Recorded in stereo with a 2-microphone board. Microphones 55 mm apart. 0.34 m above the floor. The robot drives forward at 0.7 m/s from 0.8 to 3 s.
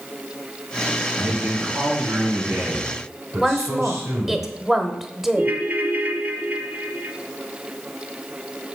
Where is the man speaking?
50° right (ahead or behind), 4 m; by 4.4 s 65° right (ahead or behind), 3.5 m.